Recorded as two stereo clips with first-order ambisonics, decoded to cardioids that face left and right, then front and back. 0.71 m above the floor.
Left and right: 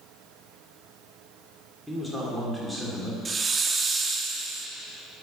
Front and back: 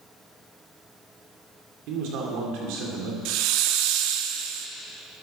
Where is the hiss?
160° right, 0.6 m.